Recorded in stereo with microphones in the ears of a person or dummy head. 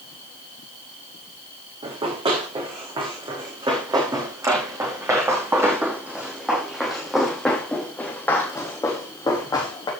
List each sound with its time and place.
1.8 s running footsteps: 30° right (ahead or behind), 5 m; by 9.9 s 25° left (ahead or behind), 3.5 m